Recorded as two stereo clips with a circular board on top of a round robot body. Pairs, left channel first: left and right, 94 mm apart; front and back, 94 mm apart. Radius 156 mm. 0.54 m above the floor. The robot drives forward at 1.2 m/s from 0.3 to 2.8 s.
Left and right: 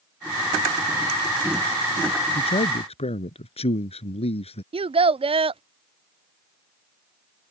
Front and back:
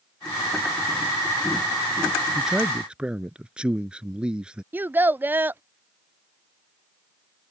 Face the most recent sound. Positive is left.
turn(degrees=-110)